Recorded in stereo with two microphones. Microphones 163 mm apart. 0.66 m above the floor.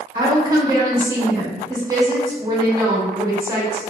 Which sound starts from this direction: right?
A woman speaking, at 0.1 s.